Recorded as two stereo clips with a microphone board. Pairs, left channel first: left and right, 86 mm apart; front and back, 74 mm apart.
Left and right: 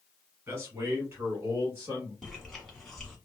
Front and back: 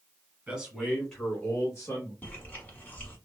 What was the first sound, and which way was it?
A man speaking, 120° right.